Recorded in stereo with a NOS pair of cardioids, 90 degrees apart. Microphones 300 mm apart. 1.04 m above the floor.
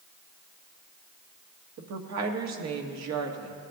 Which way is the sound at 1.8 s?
60° right.